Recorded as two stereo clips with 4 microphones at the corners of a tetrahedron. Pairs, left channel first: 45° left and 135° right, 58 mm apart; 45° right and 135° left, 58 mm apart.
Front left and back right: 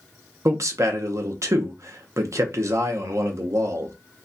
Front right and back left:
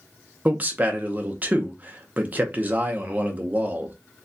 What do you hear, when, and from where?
0.5 s a man speaking: 160° right, 0.8 m